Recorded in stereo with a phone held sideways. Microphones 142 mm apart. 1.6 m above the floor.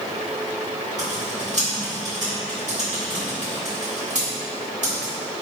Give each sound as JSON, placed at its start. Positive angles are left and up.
{"t": 1.0, "sound": "typing on a keyboard", "side_deg": -60, "distance_m": 1.9}